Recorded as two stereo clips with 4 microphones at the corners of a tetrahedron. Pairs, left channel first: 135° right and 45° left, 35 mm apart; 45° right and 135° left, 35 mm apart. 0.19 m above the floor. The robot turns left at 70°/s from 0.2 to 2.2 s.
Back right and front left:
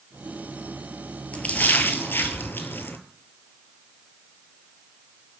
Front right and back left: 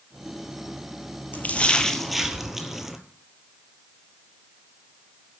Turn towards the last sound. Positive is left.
turn(degrees=-145)